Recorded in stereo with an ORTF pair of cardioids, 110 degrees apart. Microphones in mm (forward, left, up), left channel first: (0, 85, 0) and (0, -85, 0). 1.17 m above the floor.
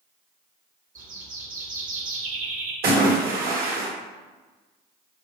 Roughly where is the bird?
Ahead right.